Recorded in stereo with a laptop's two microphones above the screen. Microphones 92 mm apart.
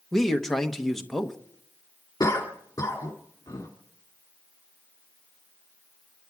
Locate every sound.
0.1 s a man speaking: 5° left (ahead or behind), 1.0 m
2.2 s a cough: 40° left (ahead or behind), 2.0 m